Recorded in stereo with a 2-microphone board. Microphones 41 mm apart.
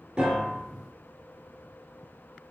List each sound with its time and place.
0.2 s a piano: 35° right (ahead or behind), 1.2 m